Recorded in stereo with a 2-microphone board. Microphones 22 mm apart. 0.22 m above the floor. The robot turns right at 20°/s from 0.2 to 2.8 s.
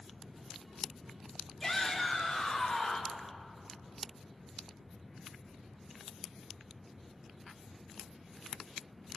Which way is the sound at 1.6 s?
20° left (ahead or behind).